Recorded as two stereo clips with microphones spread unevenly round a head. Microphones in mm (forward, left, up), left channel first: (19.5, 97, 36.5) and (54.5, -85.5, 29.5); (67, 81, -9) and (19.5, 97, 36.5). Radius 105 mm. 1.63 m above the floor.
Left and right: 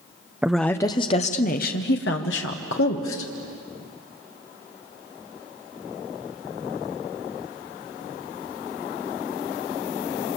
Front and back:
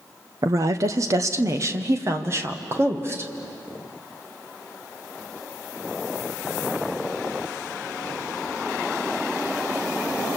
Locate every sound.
0.4 s a woman speaking: 165° right, 0.8 m; by 3.3 s 130° left, 2.0 m